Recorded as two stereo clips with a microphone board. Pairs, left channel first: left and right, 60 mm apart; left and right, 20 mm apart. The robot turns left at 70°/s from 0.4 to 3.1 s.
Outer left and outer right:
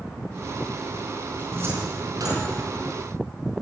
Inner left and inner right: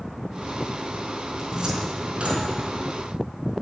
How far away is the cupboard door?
About 4.5 m.